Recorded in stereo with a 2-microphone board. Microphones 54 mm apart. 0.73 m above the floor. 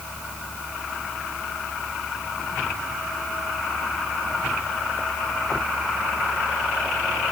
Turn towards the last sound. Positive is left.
No sound to turn to.